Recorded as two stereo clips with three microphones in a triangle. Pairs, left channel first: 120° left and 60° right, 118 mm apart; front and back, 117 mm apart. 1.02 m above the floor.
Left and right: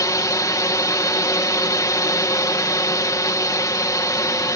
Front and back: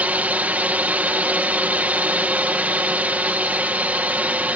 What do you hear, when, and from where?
0.0 s a drone: 120° left